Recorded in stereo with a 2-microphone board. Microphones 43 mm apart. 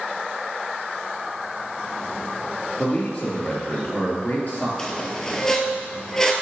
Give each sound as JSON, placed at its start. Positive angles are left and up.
{"t": 2.8, "sound": "a man speaking", "side_deg": 40, "distance_m": 2.5}
{"t": 4.8, "sound": "a squeak", "side_deg": 15, "distance_m": 0.9}